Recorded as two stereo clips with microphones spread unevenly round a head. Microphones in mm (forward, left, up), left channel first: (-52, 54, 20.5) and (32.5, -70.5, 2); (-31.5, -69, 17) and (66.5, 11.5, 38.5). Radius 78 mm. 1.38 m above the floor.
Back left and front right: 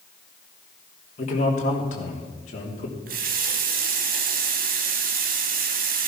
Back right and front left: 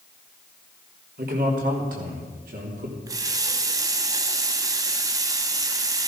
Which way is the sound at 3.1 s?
20° right.